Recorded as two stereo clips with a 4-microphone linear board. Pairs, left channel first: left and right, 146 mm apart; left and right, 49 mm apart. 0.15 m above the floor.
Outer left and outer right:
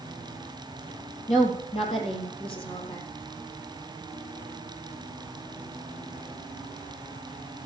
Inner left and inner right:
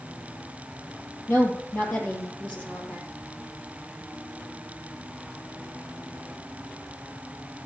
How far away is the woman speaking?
About 3.5 m.